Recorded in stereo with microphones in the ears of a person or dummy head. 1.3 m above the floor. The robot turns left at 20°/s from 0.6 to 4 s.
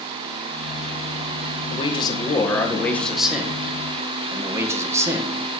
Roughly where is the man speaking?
Ahead left.